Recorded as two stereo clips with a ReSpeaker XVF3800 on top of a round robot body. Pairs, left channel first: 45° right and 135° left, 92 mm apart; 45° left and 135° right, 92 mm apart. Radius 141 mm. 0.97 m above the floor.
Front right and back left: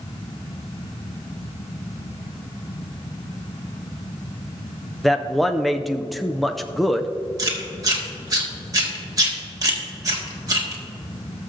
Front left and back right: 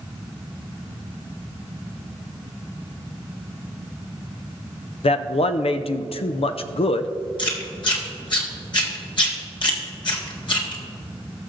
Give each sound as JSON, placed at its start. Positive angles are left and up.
{"t": 5.0, "sound": "a man speaking", "azimuth_deg": 45, "distance_m": 0.5}
{"t": 7.4, "sound": "chewing", "azimuth_deg": 85, "distance_m": 1.8}